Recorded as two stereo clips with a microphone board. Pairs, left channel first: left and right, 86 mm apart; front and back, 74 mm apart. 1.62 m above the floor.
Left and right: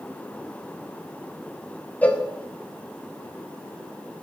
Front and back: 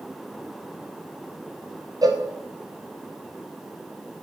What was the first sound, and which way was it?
A cowbell, 160° left.